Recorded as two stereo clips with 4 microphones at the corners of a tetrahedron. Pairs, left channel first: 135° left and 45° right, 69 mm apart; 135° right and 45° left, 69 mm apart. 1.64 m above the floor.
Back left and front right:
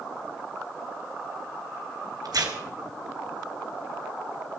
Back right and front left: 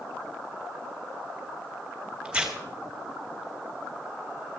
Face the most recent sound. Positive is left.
turn(degrees=-30)